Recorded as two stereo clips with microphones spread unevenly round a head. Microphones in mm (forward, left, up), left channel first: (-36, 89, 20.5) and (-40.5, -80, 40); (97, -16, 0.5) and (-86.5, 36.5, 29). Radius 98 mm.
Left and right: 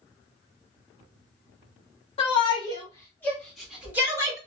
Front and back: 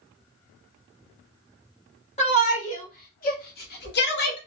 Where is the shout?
35° left, 1.5 m; by 4.4 s 20° right, 1.2 m.